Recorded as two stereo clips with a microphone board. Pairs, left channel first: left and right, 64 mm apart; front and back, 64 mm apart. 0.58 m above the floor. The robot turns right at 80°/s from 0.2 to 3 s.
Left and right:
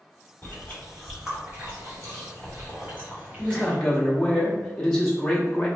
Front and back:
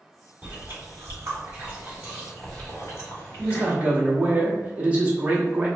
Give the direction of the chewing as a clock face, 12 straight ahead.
8 o'clock.